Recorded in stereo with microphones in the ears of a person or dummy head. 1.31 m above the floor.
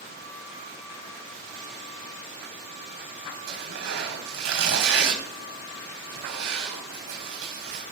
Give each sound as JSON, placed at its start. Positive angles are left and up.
{"t": 3.5, "sound": "tearing paper", "side_deg": -75, "distance_m": 3.5}